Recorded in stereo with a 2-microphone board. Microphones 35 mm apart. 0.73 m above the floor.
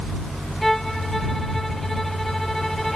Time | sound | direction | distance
0.6 | a violin | 5° left (ahead or behind) | ?